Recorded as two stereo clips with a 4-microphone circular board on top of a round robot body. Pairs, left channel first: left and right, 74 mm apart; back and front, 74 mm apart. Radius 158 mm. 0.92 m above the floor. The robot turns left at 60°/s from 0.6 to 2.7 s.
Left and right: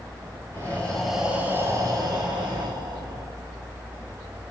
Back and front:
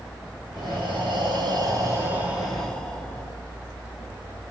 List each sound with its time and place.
0.5 s breathing: 25° left, 7 m; by 3.3 s 100° right, 7 m